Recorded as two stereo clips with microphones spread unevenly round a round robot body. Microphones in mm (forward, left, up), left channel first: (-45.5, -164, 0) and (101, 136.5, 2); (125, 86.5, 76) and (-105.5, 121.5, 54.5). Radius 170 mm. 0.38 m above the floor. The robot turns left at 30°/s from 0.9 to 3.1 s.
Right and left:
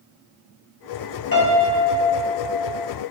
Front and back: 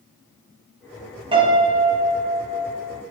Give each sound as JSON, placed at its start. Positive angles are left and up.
{"t": 1.3, "sound": "a piano", "azimuth_deg": -145, "distance_m": 0.8}